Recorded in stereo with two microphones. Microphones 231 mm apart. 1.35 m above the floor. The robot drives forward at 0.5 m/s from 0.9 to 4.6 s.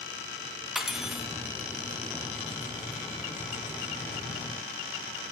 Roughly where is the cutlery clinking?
Centre.